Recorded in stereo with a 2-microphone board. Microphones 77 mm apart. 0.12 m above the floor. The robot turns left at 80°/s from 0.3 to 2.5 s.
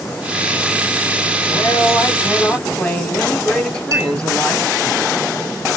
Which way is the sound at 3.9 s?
45° right (ahead or behind).